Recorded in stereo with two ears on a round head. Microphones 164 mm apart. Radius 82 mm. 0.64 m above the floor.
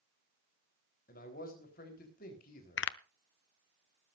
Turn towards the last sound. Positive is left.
turn(degrees=70)  # may be behind; listen again after turning